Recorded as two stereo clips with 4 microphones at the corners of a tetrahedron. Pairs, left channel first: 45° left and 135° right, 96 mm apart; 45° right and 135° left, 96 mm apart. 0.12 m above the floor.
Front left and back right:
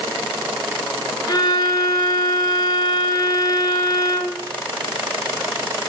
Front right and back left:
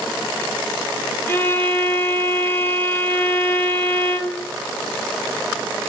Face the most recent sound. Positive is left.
turn(degrees=15)